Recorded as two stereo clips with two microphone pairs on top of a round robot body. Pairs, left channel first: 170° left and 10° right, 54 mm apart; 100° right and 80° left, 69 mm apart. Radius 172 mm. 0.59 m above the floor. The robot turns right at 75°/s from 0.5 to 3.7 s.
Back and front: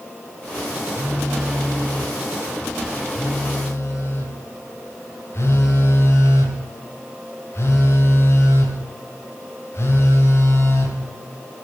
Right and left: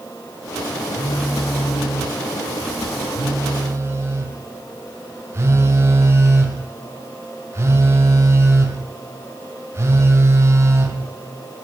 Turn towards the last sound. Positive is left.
turn(degrees=130)